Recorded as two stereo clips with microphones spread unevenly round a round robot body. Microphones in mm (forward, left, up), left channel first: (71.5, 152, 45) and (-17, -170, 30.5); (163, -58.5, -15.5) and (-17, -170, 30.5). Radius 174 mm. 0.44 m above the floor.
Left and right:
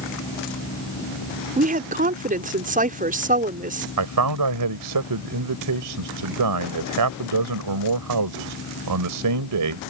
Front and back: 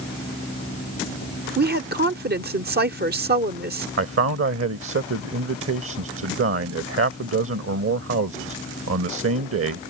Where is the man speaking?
130° right.